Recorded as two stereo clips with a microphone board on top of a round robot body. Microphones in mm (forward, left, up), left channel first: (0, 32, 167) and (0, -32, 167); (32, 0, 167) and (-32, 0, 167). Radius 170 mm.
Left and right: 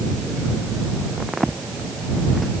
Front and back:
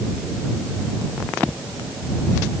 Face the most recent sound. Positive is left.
No sound to turn to.